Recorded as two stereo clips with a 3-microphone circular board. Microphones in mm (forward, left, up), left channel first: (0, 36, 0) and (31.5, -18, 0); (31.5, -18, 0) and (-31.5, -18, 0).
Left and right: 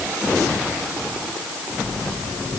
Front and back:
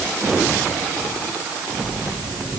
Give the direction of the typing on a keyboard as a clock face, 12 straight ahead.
No typing on a keyboard in this recording.